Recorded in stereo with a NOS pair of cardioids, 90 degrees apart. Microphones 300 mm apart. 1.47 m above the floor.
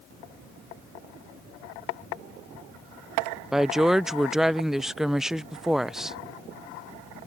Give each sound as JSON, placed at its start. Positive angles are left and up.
{"t": 3.5, "sound": "a woman speaking", "azimuth_deg": 0}